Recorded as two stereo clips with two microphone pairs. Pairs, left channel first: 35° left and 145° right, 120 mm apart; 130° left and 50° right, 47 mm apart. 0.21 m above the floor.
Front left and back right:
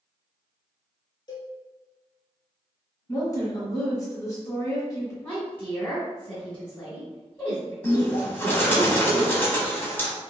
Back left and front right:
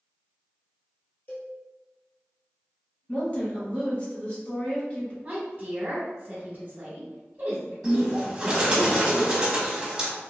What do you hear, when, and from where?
1.3 s a cowbell: 90° left, 1.2 m
3.1 s a woman speaking: 90° left, 1.5 m
5.2 s a woman speaking: 25° right, 1.1 m
7.8 s a bird: 5° right, 0.9 m